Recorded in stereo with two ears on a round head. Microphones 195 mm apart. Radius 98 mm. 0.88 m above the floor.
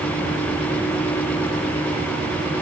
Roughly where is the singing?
No singing in this recording.